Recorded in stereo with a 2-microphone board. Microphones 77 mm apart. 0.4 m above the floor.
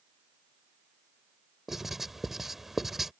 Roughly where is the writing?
Centre.